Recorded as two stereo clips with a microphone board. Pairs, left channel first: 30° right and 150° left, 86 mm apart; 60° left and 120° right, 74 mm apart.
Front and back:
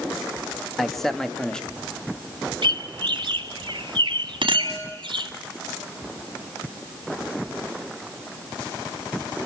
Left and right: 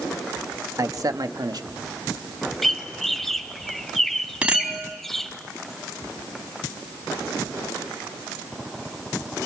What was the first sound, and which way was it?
A man speaking, 120° right.